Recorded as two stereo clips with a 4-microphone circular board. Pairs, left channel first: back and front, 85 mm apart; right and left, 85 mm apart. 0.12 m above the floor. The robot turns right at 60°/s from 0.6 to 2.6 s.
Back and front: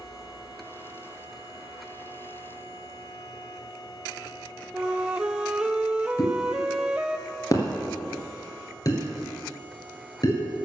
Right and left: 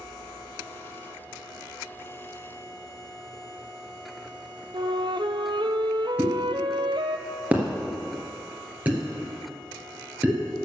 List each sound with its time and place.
4.7 s a flute: 75° left, 0.6 m
6.2 s a pop: 155° left, 2.5 m